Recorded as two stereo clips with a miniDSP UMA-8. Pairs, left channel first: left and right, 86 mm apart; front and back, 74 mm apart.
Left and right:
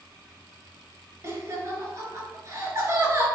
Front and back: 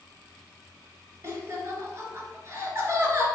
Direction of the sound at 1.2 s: 135° right.